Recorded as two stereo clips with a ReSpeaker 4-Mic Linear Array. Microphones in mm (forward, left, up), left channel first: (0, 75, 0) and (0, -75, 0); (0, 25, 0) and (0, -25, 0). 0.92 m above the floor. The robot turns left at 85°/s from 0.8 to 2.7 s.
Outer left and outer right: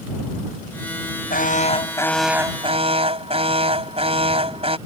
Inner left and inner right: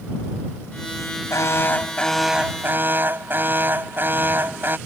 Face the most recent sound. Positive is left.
turn(degrees=-40)